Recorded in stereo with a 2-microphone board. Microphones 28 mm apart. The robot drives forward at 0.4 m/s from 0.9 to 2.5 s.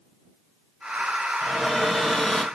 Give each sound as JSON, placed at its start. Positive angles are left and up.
{"t": 1.4, "sound": "a cupboard door", "side_deg": 10, "distance_m": 1.7}